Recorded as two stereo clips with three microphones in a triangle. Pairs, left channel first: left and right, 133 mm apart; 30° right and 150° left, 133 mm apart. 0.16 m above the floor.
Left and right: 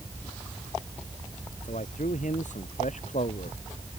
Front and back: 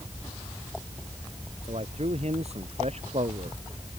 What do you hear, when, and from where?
1.6 s a man speaking: 115° left